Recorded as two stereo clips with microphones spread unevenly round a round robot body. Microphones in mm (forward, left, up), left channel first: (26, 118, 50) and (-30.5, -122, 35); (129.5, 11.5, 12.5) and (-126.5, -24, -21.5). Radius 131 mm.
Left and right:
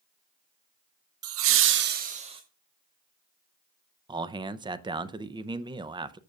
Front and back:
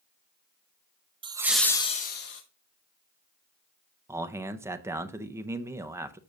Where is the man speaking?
130° right, 0.6 m.